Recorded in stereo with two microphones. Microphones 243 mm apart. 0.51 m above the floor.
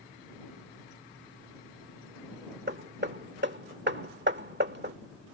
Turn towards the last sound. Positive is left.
turn(degrees=-45)  # may be behind; listen again after turning